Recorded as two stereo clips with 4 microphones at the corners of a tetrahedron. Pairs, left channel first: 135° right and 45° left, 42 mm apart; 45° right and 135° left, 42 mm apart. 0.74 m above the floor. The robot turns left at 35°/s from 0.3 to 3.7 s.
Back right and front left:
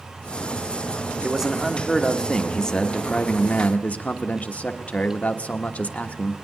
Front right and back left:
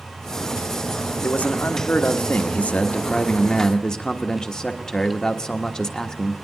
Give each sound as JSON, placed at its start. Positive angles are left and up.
{"t": 1.2, "sound": "a man speaking", "azimuth_deg": -25, "distance_m": 1.2}